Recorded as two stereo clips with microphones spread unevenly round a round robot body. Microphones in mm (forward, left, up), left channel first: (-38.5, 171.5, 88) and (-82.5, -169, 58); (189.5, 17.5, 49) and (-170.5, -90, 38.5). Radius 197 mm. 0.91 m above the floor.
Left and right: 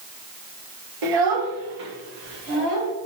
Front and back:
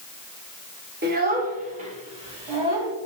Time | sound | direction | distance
1.0 | a child speaking | 100° right | 1.9 m